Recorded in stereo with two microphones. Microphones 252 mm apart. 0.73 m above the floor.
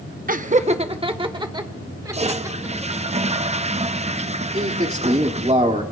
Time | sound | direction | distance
0.3 | laughter | 35° right (ahead or behind) | 0.7 m
2.1 | a toilet flushing | 25° right (ahead or behind) | 0.5 m
4.5 | a man speaking | 25° right (ahead or behind) | 1.9 m